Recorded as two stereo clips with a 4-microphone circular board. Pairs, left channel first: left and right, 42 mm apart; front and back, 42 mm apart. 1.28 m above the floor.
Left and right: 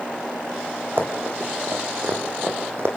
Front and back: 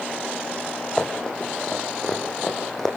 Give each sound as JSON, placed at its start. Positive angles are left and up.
{"t": 1.0, "sound": "running footsteps", "azimuth_deg": -70, "distance_m": 4.0}